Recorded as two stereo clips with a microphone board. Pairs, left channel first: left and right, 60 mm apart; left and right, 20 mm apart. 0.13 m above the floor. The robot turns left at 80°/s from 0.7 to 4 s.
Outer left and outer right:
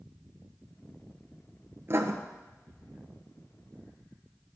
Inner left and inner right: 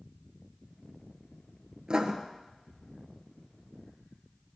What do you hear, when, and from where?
1.9 s writing: 45° right (ahead or behind), 1.1 m; by 2.1 s 55° right (ahead or behind), 1.1 m